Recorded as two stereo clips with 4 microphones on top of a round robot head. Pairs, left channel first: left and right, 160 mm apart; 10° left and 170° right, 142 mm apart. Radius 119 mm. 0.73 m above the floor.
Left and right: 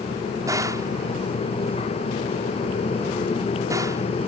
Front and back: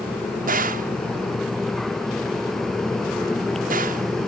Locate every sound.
0.5 s a gunshot: 160° right